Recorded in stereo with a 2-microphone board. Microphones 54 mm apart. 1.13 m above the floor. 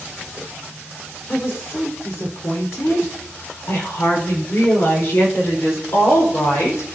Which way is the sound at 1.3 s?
70° left (ahead or behind).